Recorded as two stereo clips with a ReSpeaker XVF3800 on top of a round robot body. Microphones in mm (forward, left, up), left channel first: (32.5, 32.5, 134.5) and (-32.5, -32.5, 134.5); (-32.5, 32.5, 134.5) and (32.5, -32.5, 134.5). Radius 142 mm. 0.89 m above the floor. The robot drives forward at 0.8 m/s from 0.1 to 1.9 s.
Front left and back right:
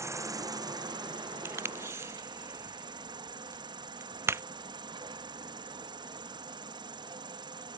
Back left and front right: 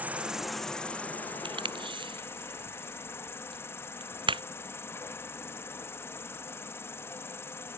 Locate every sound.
0.0 s an insect: 105° right; by 7.8 s 165° right
1.4 s tape being pulled: 70° right; by 4.4 s 75° right